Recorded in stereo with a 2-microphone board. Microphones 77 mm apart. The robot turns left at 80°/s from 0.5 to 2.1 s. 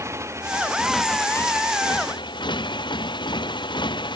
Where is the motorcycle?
145° right; by 4.2 s 90° left.